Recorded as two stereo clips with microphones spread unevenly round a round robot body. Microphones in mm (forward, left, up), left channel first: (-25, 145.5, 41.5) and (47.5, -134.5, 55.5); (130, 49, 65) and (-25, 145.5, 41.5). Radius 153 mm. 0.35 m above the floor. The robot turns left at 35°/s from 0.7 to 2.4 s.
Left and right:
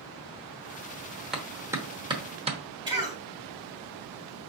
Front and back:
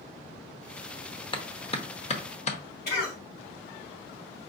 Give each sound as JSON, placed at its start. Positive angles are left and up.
{"t": 1.3, "sound": "a clap", "azimuth_deg": 15, "distance_m": 1.0}
{"t": 2.9, "sound": "a cough", "azimuth_deg": 0, "distance_m": 2.5}